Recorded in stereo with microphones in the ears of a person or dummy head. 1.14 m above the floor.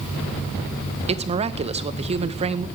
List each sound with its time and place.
1.1 s a woman speaking: 30° right (ahead or behind), 0.8 m